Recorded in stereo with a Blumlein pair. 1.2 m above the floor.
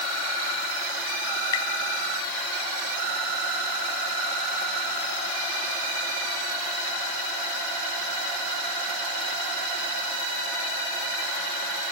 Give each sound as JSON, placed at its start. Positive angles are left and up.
{"t": 1.5, "sound": "tapping", "azimuth_deg": 55, "distance_m": 1.7}